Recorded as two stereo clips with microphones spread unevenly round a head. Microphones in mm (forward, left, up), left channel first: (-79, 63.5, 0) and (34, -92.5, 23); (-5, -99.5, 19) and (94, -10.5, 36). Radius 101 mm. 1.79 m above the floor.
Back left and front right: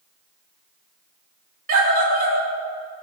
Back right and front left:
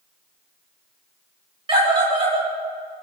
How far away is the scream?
About 6 m.